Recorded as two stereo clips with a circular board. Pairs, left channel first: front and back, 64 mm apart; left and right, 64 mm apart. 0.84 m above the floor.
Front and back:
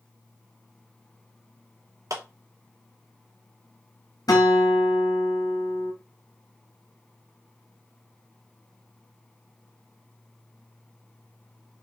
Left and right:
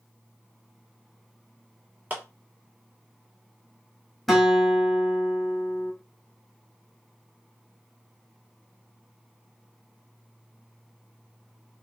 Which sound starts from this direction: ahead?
A guitar, at 4.3 s.